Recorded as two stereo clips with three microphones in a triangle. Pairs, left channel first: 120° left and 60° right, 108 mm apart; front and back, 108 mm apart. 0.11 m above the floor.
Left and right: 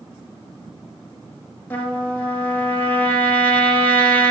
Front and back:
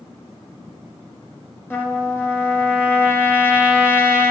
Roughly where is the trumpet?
Ahead left.